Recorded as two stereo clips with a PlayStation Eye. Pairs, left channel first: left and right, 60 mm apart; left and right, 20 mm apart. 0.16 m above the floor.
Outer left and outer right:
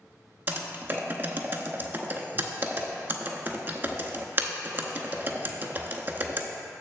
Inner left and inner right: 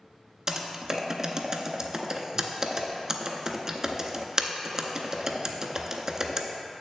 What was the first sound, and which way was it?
Typing on a keyboard, 35° right (ahead or behind).